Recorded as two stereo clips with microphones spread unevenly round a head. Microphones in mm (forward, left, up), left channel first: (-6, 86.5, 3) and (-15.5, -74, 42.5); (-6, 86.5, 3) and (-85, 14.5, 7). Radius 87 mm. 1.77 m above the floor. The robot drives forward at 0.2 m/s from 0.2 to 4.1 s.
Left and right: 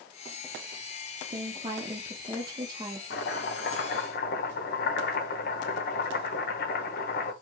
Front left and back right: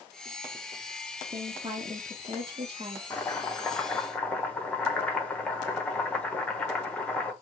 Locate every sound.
1.3 s a woman speaking: 100° right, 0.8 m; by 3.0 s 135° right, 0.9 m
3.1 s chopping: 115° left, 1.2 m; by 7.3 s 120° left, 1.3 m